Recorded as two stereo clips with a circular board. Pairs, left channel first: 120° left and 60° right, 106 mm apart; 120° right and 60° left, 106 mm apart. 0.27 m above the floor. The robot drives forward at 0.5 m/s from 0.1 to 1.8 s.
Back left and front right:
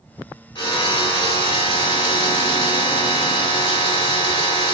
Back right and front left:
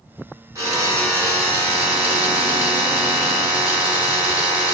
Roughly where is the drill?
Left.